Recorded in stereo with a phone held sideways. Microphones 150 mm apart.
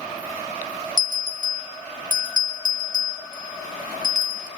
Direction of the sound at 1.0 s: 65° left (ahead or behind).